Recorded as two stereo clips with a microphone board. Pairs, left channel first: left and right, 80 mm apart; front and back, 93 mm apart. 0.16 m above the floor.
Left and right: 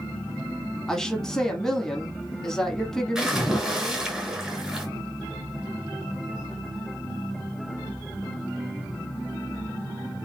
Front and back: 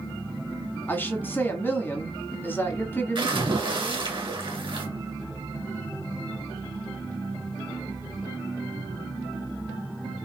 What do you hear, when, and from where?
0.9 s a woman speaking: 15° left, 1.1 m
3.1 s a splash: 170° right, 1.9 m